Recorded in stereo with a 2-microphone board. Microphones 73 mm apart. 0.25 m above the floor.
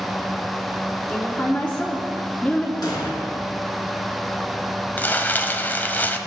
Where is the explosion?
70° left (ahead or behind), 2.5 m.